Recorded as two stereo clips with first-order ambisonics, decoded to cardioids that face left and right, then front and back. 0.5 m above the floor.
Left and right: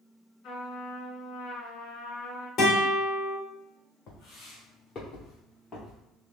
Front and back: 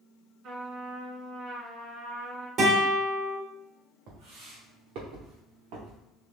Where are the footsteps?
145° left, 2 m; by 6.0 s 170° left, 3 m.